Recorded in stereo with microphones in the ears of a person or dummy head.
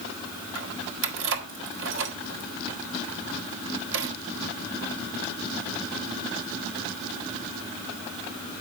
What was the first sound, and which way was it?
Keys jangling, 70° right (ahead or behind).